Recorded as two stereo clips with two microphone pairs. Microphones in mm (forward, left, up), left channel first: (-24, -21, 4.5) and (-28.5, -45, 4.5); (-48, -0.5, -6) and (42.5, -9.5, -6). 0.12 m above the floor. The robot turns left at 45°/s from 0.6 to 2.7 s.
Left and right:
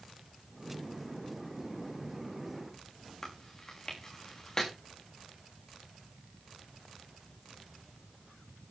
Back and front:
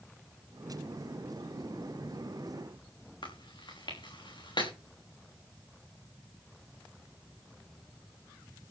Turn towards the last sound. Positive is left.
turn(degrees=150)